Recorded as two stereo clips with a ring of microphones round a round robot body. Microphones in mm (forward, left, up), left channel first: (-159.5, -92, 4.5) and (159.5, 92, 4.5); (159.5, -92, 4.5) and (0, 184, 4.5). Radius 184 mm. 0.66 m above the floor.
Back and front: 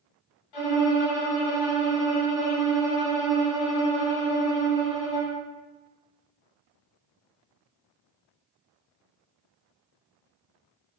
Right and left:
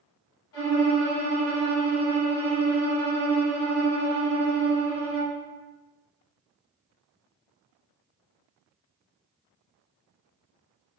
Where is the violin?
120° right, 2.0 m.